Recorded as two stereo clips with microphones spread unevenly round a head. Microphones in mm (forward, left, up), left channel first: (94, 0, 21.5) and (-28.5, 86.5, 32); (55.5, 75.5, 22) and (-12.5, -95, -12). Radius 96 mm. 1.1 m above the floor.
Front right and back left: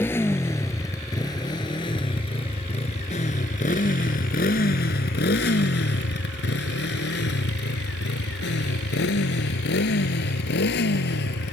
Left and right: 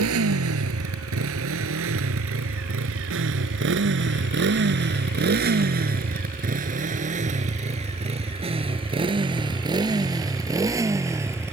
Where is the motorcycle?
115° right; by 11.5 s 35° right.